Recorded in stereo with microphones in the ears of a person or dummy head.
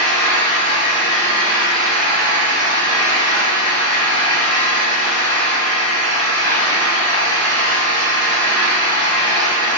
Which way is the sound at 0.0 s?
10° left (ahead or behind).